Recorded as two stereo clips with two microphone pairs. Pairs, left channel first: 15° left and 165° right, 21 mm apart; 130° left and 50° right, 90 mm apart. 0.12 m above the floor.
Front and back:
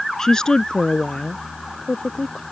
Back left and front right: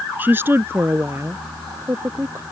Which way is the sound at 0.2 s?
10° right.